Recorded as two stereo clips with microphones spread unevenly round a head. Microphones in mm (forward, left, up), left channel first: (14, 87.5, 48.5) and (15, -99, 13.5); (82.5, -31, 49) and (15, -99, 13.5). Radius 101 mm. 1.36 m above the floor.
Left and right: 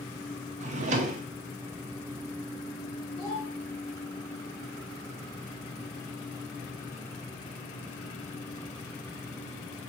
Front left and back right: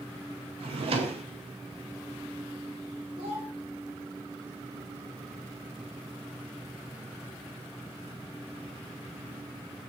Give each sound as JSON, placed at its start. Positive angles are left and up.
{"t": 0.6, "sound": "a drawer", "azimuth_deg": -140, "distance_m": 0.7}
{"t": 3.2, "sound": "a child speaking", "azimuth_deg": 165, "distance_m": 3.0}